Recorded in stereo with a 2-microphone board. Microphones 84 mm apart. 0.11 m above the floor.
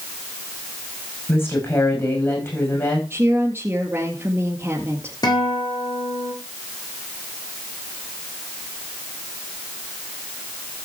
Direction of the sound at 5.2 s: 55° left (ahead or behind).